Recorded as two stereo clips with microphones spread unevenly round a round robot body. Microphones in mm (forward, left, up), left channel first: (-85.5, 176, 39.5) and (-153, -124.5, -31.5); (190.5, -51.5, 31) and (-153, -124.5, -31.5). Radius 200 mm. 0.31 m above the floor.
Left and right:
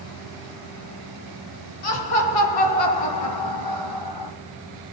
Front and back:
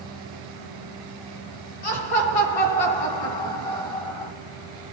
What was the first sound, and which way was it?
Laughter, 50° left.